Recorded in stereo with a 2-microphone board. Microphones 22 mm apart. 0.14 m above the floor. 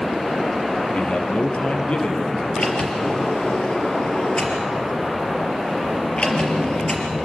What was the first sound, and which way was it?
A man speaking, 65° left (ahead or behind).